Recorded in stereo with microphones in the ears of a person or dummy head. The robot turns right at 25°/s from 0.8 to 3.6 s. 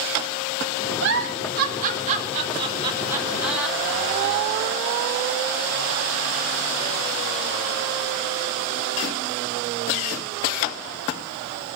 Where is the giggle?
70° right (ahead or behind), 4.5 m; by 4.5 s 5° right (ahead or behind), 4.5 m.